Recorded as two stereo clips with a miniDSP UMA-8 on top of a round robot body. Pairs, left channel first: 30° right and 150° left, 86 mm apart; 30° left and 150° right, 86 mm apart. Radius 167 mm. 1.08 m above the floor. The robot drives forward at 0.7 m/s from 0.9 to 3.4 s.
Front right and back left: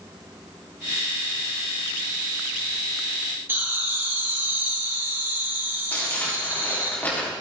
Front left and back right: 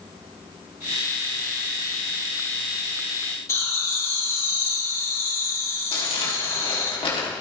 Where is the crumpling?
40° left, 3.5 m.